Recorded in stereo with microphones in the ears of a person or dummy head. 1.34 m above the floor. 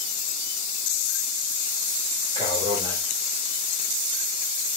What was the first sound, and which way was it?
A man speaking, 25° right (ahead or behind).